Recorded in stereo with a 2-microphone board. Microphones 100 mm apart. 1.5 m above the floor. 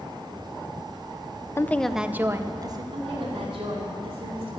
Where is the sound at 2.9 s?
75° right (ahead or behind), 4.5 m.